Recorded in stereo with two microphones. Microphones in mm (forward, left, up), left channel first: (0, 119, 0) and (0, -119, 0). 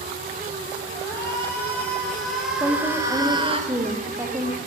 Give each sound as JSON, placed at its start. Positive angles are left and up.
{"t": 0.9, "sound": "a shout", "side_deg": 15, "distance_m": 3.5}
{"t": 2.6, "sound": "a woman speaking", "side_deg": -15, "distance_m": 4.5}